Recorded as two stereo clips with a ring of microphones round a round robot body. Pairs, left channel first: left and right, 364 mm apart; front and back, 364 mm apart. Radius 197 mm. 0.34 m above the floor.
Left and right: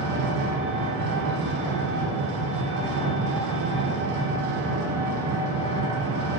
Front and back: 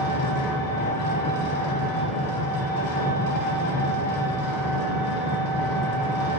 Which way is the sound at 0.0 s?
35° right.